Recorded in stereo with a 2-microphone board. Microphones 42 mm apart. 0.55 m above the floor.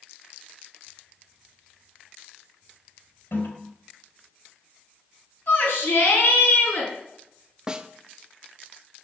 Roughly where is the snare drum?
Right.